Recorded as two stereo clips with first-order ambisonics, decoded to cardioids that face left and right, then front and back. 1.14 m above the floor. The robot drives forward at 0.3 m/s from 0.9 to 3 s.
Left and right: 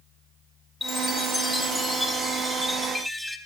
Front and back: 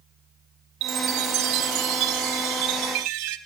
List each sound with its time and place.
0.8 s a chime: 165° left, 0.5 m; by 3.4 s 175° left, 1.1 m